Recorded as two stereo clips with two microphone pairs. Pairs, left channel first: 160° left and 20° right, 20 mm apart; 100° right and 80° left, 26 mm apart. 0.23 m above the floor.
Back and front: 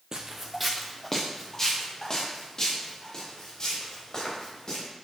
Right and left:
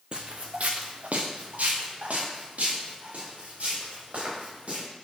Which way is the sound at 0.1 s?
35° left.